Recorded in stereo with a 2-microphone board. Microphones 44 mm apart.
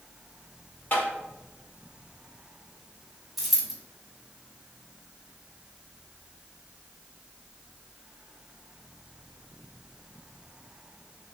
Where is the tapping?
45° left (ahead or behind), 1.4 m.